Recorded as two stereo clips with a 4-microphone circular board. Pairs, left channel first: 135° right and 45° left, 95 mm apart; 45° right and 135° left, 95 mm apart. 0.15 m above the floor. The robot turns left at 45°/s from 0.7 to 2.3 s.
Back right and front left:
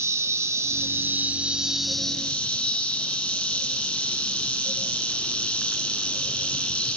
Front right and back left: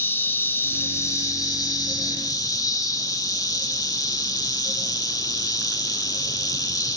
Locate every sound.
0.0 s an insect: 10° left, 1.0 m; by 7.0 s 65° right, 1.0 m